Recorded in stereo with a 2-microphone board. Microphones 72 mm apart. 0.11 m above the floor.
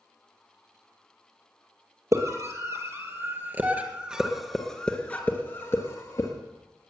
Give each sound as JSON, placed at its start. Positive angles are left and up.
{"t": 2.1, "sound": "a scream", "side_deg": -45, "distance_m": 3.5}